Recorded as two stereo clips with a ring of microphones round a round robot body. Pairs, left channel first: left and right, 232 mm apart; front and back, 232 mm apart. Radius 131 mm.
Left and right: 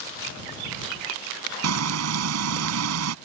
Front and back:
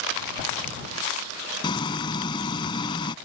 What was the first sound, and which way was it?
Frying, 75° right.